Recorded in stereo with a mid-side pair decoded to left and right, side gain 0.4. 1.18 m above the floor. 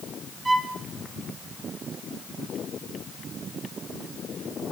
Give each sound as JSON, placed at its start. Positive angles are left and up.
{"t": 0.5, "sound": "a violin", "azimuth_deg": -25, "distance_m": 2.5}